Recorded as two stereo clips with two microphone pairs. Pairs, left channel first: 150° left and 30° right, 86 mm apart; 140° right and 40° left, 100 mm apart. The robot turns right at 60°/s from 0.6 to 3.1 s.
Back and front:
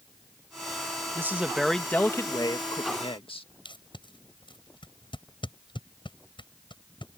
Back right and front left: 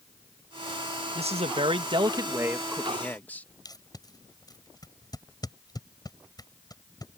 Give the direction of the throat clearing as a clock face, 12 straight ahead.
No throat clearing in this recording.